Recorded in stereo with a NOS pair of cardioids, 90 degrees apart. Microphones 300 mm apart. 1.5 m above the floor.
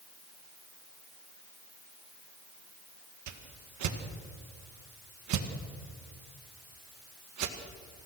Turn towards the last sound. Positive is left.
turn(degrees=-70)